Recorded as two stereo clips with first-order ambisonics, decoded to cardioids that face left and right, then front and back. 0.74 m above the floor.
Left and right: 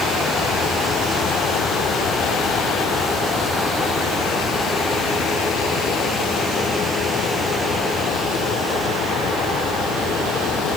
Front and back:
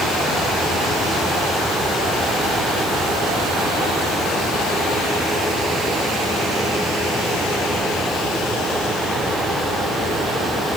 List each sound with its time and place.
Only background noise.